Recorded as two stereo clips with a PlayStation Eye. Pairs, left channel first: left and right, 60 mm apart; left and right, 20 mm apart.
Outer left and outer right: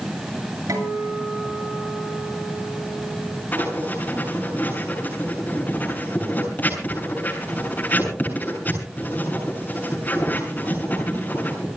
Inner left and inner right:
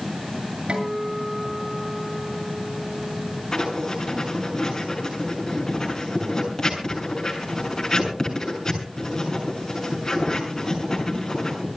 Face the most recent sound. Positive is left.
turn(degrees=30)  # may be behind; listen again after turning